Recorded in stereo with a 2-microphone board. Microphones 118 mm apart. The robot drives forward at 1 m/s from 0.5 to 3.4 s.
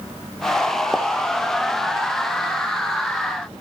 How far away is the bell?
No bell in this recording.